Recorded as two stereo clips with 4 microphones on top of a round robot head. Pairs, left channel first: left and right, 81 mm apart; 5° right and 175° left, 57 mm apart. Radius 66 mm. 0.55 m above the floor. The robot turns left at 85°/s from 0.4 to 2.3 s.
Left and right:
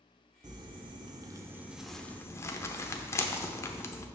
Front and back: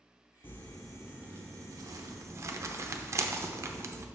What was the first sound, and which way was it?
Crumpling, 60° right.